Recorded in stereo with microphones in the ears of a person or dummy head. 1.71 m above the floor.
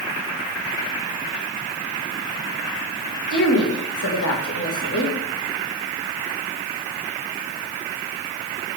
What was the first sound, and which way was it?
A woman speaking, 60° left (ahead or behind).